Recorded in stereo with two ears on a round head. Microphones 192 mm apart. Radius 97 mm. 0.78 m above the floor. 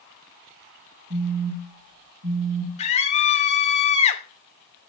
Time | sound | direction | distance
1.1 | a phone buzzing | 75° right (ahead or behind) | 7.5 m
2.8 | a scream | 30° left (ahead or behind) | 2 m